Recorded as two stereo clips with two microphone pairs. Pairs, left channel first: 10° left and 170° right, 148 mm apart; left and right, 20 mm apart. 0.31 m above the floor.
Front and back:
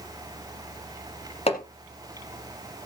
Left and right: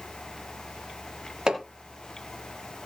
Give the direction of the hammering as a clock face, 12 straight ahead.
1 o'clock.